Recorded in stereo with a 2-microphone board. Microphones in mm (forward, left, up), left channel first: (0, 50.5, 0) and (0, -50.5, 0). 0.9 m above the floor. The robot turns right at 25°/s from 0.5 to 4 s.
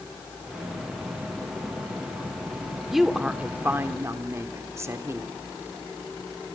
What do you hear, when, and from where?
2.9 s a woman speaking: centre (ahead or behind), 2.5 m; by 5.4 s 30° right (ahead or behind), 2.5 m